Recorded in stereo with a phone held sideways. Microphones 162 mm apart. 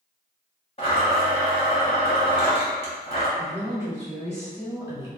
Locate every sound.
0.8 s a blender: 35° left (ahead or behind), 1.1 m
3.4 s a woman speaking: 20° right (ahead or behind), 1.8 m